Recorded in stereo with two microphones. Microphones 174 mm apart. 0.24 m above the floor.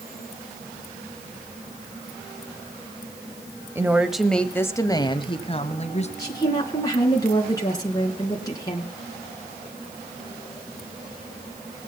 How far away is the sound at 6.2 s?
About 3.5 m.